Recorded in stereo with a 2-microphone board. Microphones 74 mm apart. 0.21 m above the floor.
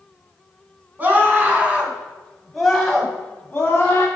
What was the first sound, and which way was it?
A scream, 25° right (ahead or behind).